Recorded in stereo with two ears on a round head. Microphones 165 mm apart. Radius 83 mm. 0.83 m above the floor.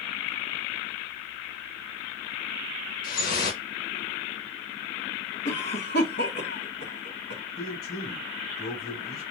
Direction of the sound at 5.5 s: 60° left (ahead or behind).